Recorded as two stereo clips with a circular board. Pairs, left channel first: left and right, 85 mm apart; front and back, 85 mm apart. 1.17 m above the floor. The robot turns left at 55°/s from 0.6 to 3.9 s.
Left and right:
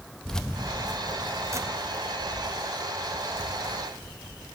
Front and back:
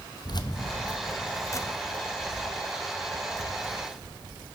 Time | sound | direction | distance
0.2 | keys jangling | 10° left | 0.5 m